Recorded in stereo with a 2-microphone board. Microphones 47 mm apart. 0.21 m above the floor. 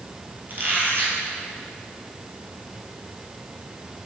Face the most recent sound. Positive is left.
turn(degrees=-45)  # may be behind; listen again after turning